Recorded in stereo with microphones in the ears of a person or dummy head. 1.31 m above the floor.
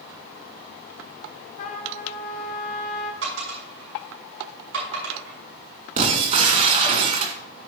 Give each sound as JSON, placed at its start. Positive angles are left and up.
{"t": 1.6, "sound": "a trumpet", "side_deg": 45, "distance_m": 4.0}
{"t": 3.2, "sound": "a dropped coin", "side_deg": -85, "distance_m": 6.0}
{"t": 6.0, "sound": "breaking glass", "side_deg": -45, "distance_m": 2.0}